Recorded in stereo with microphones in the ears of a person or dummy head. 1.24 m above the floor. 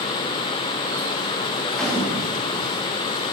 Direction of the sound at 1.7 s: 5° left (ahead or behind).